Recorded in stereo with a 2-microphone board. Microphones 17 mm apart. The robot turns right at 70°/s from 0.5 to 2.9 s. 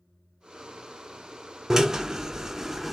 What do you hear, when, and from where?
1.7 s a drill: 105° right, 0.5 m; by 3.0 s 25° right, 0.5 m